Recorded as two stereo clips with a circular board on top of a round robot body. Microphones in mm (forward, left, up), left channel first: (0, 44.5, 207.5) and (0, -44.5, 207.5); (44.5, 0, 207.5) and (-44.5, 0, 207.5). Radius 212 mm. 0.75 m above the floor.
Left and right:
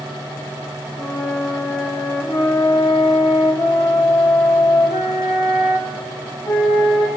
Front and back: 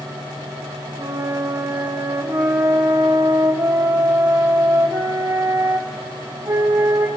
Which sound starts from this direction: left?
A flute, at 1.0 s.